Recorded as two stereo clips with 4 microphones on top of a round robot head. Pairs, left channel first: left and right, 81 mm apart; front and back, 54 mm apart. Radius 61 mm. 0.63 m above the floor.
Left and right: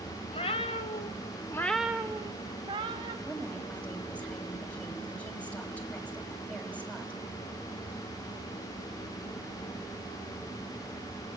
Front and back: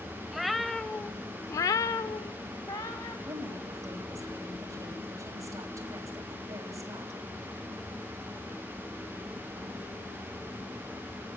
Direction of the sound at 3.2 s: 165° left.